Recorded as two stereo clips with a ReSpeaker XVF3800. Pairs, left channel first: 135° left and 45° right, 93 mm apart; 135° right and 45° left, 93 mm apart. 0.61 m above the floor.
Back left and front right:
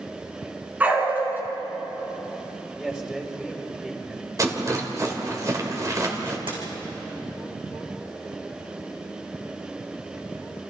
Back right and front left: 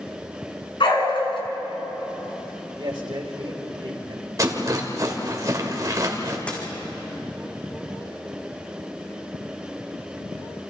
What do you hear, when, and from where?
0.8 s a dog barking: 115° right, 3.5 m
2.8 s a man speaking: 35° left, 3.5 m
4.4 s a rattle: straight ahead, 2.5 m
6.5 s a dropped coin: 60° right, 4.5 m